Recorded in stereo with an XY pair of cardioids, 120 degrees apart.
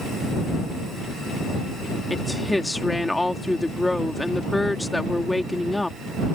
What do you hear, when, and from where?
2.1 s a woman speaking: 5° left